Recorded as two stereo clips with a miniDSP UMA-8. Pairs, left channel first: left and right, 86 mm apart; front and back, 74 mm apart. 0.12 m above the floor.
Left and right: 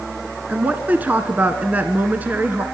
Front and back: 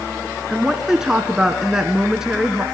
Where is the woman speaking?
110° right, 1.1 m.